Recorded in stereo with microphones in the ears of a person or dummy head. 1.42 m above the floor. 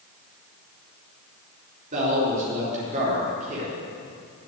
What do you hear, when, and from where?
1.9 s a man speaking: 45° right (ahead or behind), 3.5 m